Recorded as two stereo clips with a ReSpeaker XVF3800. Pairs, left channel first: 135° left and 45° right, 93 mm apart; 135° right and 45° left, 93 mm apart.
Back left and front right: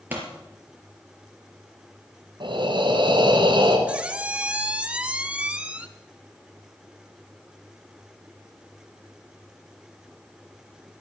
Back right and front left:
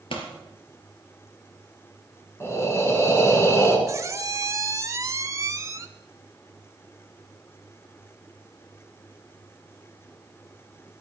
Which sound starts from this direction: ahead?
A squeak, at 3.9 s.